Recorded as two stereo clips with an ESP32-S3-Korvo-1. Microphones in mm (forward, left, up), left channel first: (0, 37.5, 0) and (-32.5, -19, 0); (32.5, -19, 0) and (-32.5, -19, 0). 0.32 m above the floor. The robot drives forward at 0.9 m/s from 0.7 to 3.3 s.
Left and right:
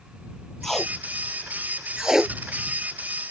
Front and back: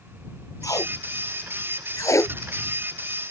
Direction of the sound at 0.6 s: 25° right.